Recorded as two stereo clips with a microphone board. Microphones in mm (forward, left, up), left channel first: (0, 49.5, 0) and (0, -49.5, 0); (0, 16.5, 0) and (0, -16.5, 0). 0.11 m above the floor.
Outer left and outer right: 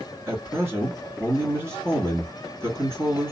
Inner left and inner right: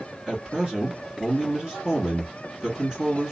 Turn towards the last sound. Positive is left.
turn(degrees=-25)  # may be behind; listen again after turning